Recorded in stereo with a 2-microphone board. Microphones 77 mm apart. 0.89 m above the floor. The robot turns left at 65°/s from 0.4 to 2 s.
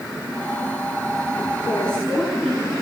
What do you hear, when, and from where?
1.6 s a woman speaking: 25° left (ahead or behind), 7.5 m; by 2.7 s 5° left (ahead or behind), 7.5 m